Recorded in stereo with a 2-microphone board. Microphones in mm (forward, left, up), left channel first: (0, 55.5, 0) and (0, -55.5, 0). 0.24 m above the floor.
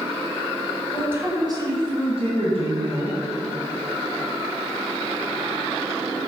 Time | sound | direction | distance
0.9 | a woman speaking | 10° right (ahead or behind) | 1.5 m